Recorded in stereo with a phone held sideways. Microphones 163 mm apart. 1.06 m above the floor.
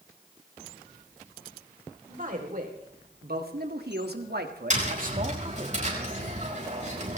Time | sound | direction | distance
2.1 | a man speaking | 55° right (ahead or behind) | 3.5 m
4.7 | tapping | 45° right (ahead or behind) | 5 m